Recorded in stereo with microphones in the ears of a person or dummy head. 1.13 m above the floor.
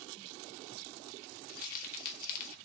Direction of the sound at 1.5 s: 45° left (ahead or behind).